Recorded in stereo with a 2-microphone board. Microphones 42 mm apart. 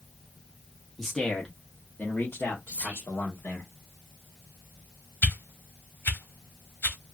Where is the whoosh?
60° left (ahead or behind), 0.8 m.